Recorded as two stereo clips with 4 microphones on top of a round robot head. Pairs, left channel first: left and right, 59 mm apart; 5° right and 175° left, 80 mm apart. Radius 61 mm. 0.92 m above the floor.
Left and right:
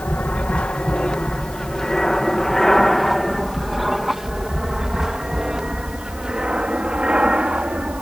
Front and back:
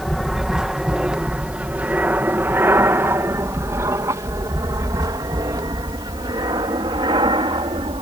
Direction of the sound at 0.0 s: 95° left.